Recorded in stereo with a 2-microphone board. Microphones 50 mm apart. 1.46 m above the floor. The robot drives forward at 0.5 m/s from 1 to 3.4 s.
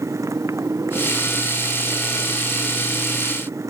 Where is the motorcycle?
80° right.